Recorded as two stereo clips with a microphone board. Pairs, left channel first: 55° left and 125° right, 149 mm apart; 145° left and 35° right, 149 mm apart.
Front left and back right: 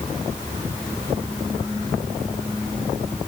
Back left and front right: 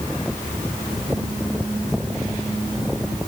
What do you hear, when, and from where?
Only background noise.